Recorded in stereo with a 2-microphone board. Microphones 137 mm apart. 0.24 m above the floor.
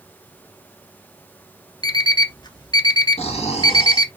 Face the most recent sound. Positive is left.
turn(degrees=50)  # may be behind; listen again after turning